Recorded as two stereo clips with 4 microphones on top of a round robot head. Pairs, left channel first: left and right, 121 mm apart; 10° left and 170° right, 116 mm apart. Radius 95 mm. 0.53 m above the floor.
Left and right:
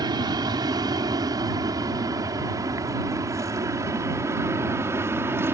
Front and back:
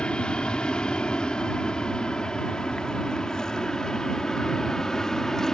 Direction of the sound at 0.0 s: 70° right.